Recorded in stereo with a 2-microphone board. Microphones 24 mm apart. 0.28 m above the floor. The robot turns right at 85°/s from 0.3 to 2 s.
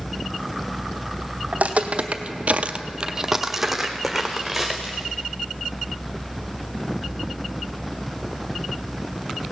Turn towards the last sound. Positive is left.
turn(degrees=10)  # may be behind; listen again after turning